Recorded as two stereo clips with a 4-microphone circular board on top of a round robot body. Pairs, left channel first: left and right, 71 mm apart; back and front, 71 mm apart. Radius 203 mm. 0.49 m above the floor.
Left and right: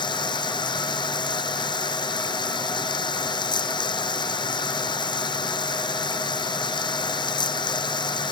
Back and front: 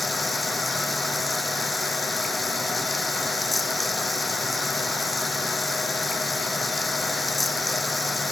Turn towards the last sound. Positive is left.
turn(degrees=90)